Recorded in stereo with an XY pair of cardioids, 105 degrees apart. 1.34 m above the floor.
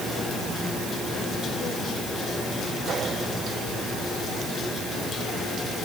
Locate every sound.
Only background noise.